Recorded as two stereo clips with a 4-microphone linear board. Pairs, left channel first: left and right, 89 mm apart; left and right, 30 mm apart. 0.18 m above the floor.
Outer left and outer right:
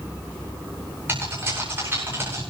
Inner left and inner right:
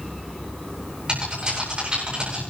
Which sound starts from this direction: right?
Typing on a keyboard, at 1.1 s.